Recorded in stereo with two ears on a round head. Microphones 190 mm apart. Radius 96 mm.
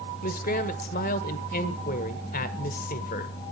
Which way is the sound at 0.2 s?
40° left (ahead or behind).